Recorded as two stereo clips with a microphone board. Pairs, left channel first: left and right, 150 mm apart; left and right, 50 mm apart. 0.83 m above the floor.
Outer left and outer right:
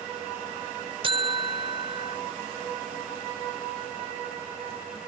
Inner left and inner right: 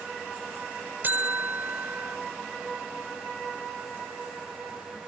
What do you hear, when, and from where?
1.0 s a buzzer: 35° right (ahead or behind)